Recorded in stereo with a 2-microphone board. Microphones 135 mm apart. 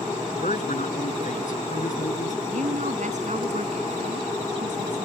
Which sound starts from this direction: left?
A man speaking, at 0.4 s.